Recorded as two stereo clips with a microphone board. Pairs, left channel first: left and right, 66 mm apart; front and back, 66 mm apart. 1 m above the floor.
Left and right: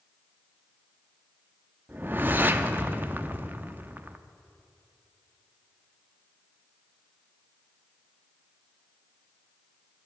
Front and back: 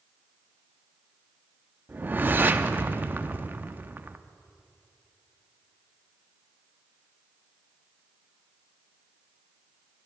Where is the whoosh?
135° right, 0.5 m.